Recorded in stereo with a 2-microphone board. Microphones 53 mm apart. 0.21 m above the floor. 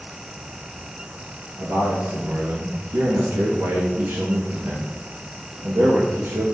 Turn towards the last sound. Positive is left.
turn(degrees=-65)  # may be behind; listen again after turning